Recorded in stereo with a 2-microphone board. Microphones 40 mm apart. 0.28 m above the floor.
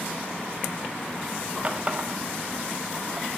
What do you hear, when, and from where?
1.6 s a running tap: 35° right (ahead or behind), 0.8 m